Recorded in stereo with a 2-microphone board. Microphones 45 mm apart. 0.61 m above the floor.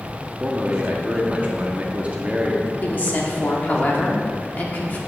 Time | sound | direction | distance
0.4 | a man speaking | 30° right (ahead or behind) | 0.8 m
2.8 | a woman speaking | 45° left (ahead or behind) | 1.1 m